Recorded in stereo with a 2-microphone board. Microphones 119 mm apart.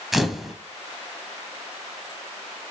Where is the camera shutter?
Centre (ahead or behind), 0.7 m.